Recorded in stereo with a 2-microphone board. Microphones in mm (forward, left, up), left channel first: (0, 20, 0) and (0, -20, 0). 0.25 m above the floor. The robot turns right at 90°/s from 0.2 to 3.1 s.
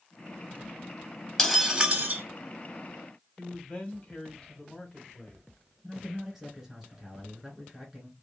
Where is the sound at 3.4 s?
25° left (ahead or behind), 1.3 m.